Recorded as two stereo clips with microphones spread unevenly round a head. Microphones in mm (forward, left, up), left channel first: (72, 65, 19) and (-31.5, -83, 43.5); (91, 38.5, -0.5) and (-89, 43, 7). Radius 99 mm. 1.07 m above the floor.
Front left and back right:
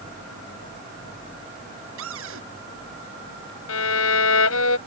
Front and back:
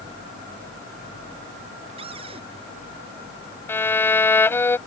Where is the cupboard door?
115° right.